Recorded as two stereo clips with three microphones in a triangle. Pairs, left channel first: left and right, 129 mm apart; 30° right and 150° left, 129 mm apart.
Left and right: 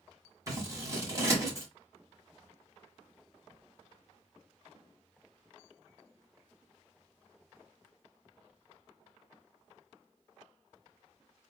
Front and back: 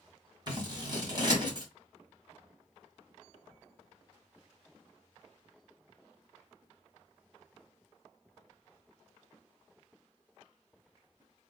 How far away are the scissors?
About 1.7 m.